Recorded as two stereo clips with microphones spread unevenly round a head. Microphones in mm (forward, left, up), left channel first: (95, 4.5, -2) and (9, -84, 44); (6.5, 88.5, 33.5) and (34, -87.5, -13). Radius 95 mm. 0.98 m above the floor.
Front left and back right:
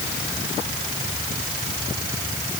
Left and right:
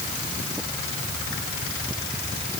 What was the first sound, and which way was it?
Only background noise.